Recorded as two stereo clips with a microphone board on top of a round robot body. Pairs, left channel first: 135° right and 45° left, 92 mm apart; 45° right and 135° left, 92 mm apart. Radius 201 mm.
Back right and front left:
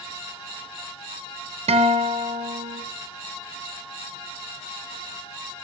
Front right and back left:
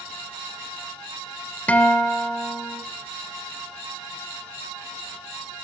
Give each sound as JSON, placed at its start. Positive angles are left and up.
{"t": 1.7, "sound": "a guitar", "azimuth_deg": 30, "distance_m": 1.3}